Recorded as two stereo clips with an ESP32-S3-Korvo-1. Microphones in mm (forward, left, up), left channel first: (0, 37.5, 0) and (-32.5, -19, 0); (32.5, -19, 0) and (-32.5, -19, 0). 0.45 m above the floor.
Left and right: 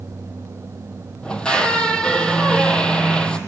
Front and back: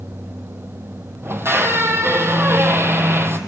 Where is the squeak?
135° left, 1.1 m.